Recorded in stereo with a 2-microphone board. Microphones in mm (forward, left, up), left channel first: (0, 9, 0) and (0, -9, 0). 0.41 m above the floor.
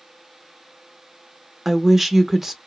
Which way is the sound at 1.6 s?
15° right (ahead or behind).